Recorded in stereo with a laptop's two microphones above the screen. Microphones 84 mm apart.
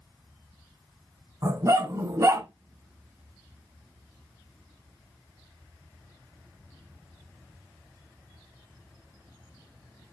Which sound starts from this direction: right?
A dog barking, at 1.4 s.